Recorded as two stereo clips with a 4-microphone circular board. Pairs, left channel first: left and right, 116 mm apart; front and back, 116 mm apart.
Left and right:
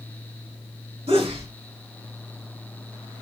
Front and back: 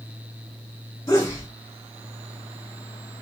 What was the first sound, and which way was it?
A sneeze, 65° right.